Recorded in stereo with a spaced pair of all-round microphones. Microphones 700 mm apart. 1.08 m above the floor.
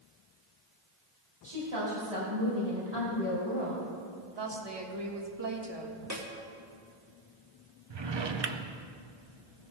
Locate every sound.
1.4 s a woman speaking: 45° right (ahead or behind), 4 m
4.4 s a woman speaking: 35° right (ahead or behind), 1.4 m
6.1 s a snare drum: 20° right (ahead or behind), 1.6 m
7.9 s a drawer: 40° right (ahead or behind), 0.6 m